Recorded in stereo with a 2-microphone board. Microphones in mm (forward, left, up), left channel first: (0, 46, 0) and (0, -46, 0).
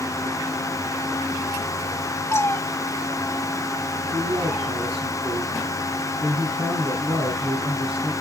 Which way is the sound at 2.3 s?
30° left (ahead or behind).